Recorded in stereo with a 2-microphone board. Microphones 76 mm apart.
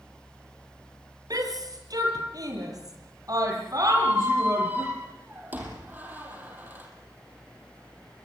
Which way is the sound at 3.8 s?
25° right (ahead or behind).